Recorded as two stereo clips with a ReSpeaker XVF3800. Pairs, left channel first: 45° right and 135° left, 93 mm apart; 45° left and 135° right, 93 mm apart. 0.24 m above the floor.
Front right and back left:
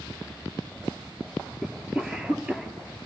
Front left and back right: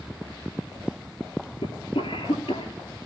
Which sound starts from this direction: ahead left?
A cough, at 1.6 s.